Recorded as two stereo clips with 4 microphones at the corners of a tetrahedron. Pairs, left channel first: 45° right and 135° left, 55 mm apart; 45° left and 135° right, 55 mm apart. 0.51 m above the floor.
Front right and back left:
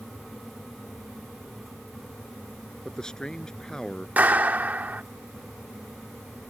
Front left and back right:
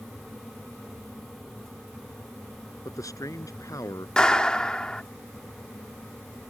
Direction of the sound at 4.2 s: 110° left.